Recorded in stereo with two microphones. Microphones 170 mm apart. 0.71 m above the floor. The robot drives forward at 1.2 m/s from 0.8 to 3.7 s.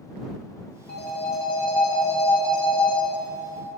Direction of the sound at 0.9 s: 80° left.